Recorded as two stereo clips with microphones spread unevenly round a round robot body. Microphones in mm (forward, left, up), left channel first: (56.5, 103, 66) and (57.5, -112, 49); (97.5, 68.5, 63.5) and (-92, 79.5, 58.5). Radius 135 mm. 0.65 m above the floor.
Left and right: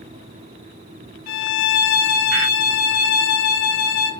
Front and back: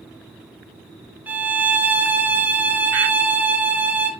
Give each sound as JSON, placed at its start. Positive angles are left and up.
{"t": 1.3, "sound": "a violin", "azimuth_deg": 95, "distance_m": 1.1}